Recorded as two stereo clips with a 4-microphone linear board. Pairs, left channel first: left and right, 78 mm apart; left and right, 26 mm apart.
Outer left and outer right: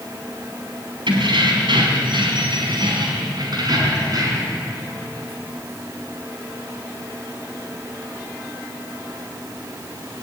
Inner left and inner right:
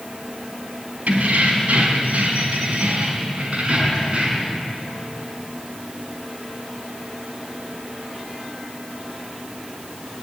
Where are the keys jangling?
85° right, 4 m; by 4.6 s 50° right (ahead or behind), 5.5 m.